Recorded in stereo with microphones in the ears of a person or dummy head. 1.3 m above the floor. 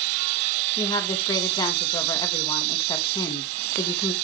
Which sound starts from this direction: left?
A woman speaking, at 0.8 s.